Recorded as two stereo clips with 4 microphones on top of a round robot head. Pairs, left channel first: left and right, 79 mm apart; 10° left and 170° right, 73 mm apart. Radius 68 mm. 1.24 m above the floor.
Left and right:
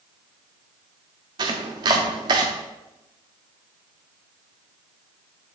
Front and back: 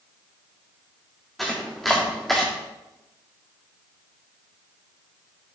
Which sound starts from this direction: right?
Chopping, at 1.4 s.